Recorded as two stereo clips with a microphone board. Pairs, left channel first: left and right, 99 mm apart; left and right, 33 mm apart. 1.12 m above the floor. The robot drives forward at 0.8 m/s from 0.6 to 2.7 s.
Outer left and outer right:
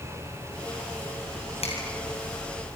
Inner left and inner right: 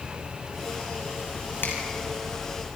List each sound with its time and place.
1.6 s a finger snap: 85° left, 6.5 m